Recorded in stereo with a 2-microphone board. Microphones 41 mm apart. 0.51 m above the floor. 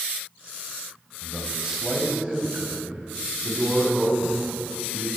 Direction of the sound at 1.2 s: 10° right (ahead or behind).